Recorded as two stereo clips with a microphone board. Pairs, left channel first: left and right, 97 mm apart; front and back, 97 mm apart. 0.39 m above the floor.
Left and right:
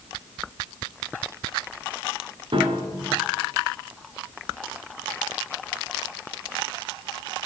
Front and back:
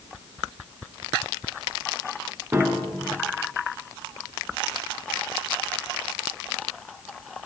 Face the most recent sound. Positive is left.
turn(degrees=-115)